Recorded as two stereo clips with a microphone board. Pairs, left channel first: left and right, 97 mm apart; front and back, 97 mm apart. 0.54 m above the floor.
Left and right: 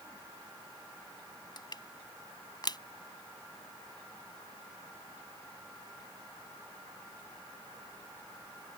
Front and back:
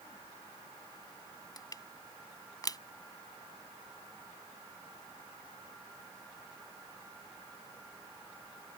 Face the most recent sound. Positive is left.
turn(degrees=50)